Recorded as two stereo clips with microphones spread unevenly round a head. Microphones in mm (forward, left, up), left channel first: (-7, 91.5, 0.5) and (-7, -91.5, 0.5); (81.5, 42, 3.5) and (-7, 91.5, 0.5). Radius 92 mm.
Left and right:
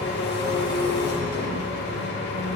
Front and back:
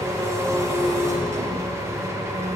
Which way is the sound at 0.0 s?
95° left.